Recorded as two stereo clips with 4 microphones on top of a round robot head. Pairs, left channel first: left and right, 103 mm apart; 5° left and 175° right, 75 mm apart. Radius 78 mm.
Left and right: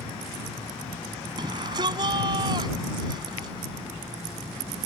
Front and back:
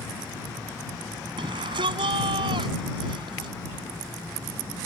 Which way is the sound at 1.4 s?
145° right.